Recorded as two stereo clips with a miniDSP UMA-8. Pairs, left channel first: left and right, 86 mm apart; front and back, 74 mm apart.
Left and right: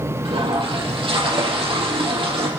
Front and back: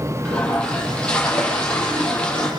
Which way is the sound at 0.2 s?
75° right.